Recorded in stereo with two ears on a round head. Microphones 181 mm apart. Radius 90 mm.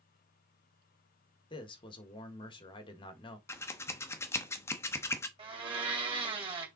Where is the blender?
30° right (ahead or behind), 2.5 m.